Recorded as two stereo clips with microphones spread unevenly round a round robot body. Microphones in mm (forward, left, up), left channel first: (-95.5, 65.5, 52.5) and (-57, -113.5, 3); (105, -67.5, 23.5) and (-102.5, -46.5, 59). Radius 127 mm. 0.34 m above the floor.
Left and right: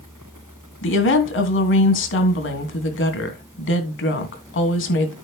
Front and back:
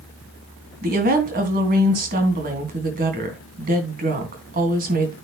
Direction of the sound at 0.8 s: 120° left.